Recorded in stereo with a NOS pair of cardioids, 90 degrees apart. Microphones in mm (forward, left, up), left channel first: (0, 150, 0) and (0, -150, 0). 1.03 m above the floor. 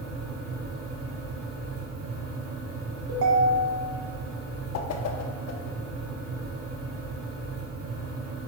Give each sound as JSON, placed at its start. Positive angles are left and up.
{"t": 0.0, "sound": "a fan", "azimuth_deg": -50, "distance_m": 1.9}
{"t": 3.1, "sound": "a ringtone", "azimuth_deg": -60, "distance_m": 1.5}
{"t": 4.7, "sound": "a whoosh", "azimuth_deg": 60, "distance_m": 0.9}